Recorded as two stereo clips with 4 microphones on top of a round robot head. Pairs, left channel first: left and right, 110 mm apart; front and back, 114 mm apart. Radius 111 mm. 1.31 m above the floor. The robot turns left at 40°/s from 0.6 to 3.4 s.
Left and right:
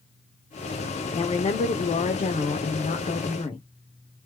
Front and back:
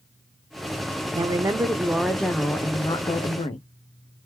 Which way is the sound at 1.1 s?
130° left.